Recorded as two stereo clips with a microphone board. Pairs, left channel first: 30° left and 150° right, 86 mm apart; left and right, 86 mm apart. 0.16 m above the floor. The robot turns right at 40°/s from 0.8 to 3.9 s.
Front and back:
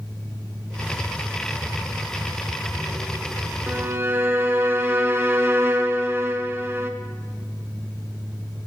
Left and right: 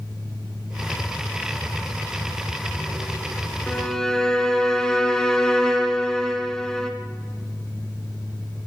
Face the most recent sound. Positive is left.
turn(degrees=165)